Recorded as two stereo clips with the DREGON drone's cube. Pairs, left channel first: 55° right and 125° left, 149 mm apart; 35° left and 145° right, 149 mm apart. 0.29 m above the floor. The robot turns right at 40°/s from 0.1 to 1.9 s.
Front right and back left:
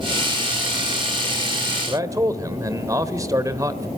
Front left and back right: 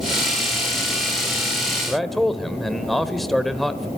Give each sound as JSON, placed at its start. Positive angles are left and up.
{"t": 1.9, "sound": "a man speaking", "azimuth_deg": 120, "distance_m": 1.3}